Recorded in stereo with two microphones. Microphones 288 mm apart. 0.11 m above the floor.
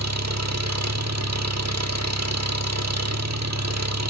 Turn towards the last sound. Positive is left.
turn(degrees=-65)  # may be behind; listen again after turning